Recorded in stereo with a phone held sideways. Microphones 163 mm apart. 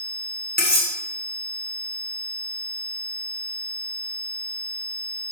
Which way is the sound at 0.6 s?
85° left.